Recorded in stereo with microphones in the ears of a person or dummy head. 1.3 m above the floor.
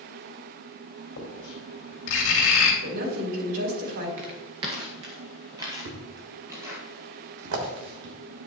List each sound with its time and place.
1.2 s writing: 65° left (ahead or behind), 3 m
2.8 s a woman speaking: 75° right (ahead or behind), 3 m
4.2 s footsteps: 25° right (ahead or behind), 1.3 m; by 6.8 s 5° right (ahead or behind), 2 m
5.8 s a thud: 60° right (ahead or behind), 1.7 m